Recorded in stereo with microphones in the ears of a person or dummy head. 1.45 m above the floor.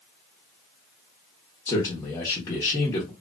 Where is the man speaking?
15° left (ahead or behind), 0.9 m.